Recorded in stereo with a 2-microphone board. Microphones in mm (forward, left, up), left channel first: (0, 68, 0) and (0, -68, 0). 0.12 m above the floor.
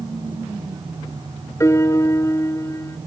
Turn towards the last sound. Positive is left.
turn(degrees=20)  # may be behind; listen again after turning